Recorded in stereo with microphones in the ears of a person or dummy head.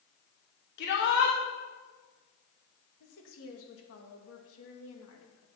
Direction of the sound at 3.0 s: 80° left.